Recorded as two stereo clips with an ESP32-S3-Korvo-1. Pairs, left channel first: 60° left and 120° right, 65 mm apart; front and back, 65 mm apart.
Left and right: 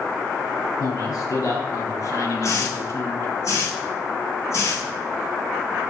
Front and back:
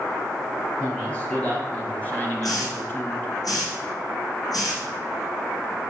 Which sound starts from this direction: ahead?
A hiss, at 2.4 s.